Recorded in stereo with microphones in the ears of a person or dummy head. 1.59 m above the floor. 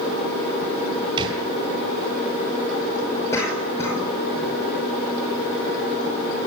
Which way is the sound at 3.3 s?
20° left (ahead or behind).